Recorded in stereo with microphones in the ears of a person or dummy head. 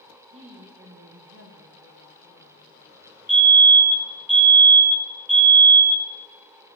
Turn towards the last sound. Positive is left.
turn(degrees=0)  # may be behind; listen again after turning